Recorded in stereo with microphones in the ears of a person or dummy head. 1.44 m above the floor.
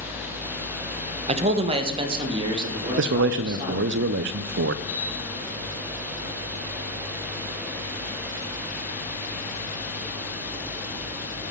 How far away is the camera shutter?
About 2.5 m.